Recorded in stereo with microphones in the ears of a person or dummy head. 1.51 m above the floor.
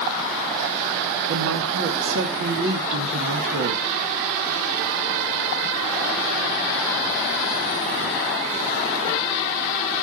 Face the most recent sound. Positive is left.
turn(degrees=-65)  # may be behind; listen again after turning